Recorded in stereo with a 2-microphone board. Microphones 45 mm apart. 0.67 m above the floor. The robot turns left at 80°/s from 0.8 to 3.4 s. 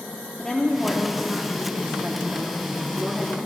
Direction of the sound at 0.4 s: 20° left.